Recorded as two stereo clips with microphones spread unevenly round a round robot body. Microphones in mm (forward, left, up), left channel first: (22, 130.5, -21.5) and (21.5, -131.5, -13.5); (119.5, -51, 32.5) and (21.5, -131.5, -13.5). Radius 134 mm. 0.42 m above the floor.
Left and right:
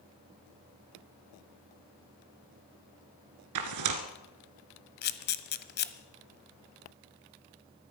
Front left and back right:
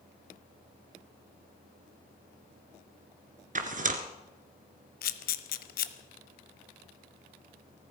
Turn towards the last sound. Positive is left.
turn(degrees=35)